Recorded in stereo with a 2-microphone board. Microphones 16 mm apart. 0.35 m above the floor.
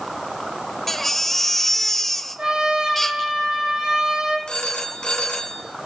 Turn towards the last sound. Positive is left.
turn(degrees=55)  # may be behind; listen again after turning